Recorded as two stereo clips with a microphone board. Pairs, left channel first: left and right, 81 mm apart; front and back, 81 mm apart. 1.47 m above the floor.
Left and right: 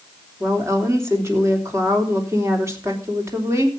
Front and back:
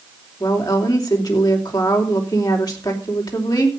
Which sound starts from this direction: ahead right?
A woman speaking, at 0.4 s.